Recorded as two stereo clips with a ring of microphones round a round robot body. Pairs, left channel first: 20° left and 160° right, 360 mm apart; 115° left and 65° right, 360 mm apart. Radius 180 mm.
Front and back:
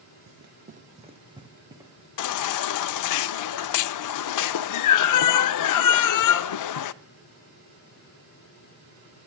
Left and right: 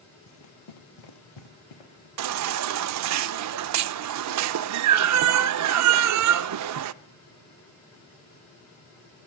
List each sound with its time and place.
0.3 s running footsteps: 165° left, 0.8 m; by 2.1 s 120° left, 3 m
2.2 s a baby crying: 20° right, 0.5 m